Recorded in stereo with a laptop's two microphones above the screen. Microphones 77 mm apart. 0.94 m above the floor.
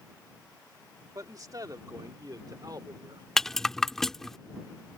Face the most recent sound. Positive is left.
turn(degrees=5)  # may be behind; listen again after turning